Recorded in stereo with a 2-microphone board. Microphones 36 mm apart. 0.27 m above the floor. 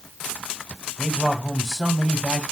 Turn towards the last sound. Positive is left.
turn(degrees=10)  # may be behind; listen again after turning